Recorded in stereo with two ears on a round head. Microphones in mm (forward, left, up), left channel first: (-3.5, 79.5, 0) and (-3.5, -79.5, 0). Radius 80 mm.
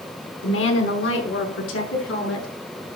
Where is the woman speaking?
80° left, 4.5 m; by 2.5 s 75° left (ahead or behind), 7.5 m.